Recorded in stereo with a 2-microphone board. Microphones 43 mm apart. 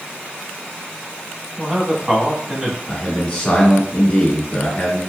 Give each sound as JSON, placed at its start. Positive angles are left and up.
{"t": 1.6, "sound": "a man speaking", "side_deg": -15, "distance_m": 1.1}
{"t": 2.9, "sound": "a man speaking", "side_deg": 35, "distance_m": 1.7}